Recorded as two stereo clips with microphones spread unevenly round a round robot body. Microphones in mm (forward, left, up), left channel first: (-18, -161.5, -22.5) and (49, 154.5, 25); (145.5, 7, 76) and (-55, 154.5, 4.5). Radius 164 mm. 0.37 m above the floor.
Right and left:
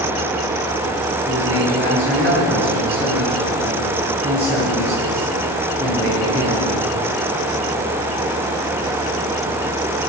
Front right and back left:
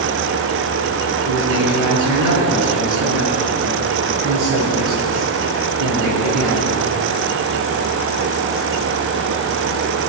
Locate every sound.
1.2 s a man speaking: 175° left, 5.5 m